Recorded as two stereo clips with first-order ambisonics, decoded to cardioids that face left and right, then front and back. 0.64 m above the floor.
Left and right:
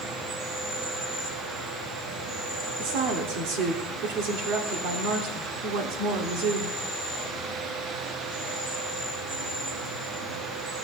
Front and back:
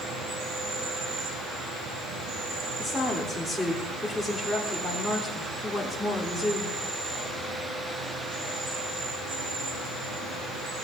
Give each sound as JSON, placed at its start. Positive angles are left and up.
{"t": 0.0, "sound": "an insect", "azimuth_deg": -130, "distance_m": 6.0}
{"t": 2.8, "sound": "a woman speaking", "azimuth_deg": -90, "distance_m": 1.7}